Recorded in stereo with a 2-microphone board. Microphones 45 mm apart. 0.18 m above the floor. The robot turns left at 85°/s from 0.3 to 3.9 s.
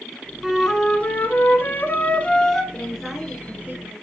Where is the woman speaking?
35° left, 2 m; by 3.9 s 65° right, 2 m.